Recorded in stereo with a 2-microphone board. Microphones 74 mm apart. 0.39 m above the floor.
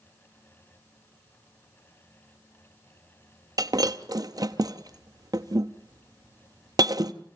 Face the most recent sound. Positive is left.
turn(degrees=-60)  # may be behind; listen again after turning